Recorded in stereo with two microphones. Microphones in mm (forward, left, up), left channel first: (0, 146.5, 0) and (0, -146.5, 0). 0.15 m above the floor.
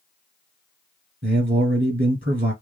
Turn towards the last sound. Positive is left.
turn(degrees=-30)  # may be behind; listen again after turning